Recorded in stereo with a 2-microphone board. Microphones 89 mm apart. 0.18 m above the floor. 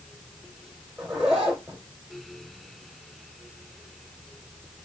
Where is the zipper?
5° right (ahead or behind), 2 m.